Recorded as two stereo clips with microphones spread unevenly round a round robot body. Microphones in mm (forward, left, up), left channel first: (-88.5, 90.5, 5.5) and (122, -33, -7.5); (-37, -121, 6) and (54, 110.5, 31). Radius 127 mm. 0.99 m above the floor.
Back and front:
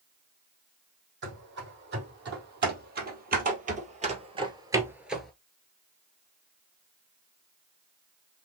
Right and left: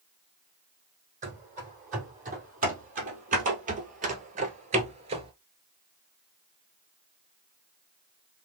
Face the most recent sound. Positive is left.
turn(degrees=75)